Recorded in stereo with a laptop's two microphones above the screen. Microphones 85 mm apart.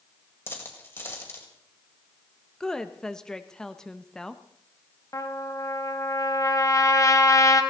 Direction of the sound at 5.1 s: 40° left (ahead or behind).